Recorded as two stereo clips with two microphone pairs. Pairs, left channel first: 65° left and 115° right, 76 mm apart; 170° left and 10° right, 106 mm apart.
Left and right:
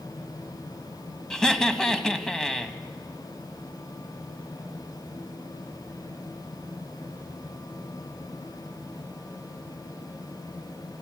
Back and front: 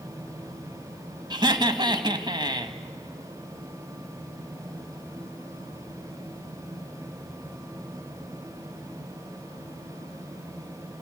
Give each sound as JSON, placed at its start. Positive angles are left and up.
{"t": 1.3, "sound": "laughter", "azimuth_deg": -15, "distance_m": 1.9}